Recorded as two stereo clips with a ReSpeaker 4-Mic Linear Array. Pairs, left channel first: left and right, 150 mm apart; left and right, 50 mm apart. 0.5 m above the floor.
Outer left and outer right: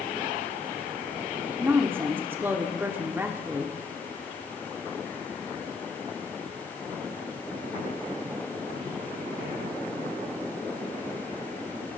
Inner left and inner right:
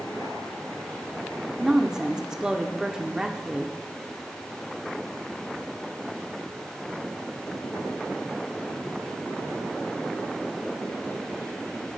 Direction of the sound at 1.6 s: 15° right (ahead or behind).